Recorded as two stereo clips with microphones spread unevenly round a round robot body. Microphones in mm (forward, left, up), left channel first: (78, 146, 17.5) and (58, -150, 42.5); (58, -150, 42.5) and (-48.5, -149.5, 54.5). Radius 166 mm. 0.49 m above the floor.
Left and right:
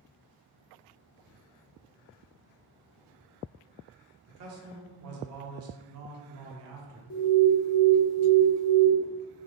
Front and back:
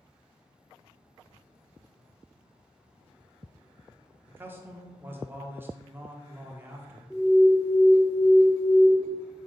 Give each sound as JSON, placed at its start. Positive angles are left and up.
{"t": 4.3, "sound": "a man speaking", "azimuth_deg": -110, "distance_m": 1.0}
{"t": 7.1, "sound": "an alarm", "azimuth_deg": 80, "distance_m": 0.9}